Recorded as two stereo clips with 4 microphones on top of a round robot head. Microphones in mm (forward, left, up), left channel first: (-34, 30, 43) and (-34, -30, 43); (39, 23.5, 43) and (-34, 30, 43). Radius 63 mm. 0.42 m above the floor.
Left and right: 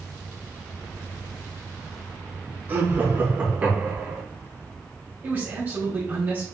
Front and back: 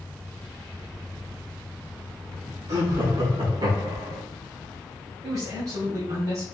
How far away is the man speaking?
About 3 m.